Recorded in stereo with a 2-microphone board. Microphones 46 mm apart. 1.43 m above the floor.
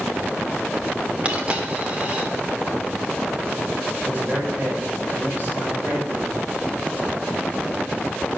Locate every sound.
1.2 s a dropped coin: 25° right (ahead or behind), 1.5 m
4.0 s a man speaking: 45° right (ahead or behind), 7.5 m